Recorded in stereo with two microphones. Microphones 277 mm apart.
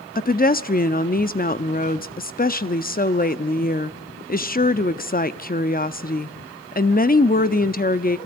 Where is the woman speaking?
35° left (ahead or behind), 0.8 m.